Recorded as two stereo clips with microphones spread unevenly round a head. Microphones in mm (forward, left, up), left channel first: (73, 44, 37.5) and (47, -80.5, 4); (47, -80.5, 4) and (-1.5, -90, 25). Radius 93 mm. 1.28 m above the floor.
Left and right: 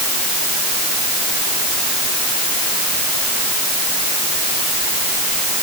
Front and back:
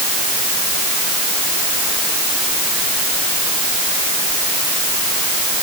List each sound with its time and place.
Only background noise.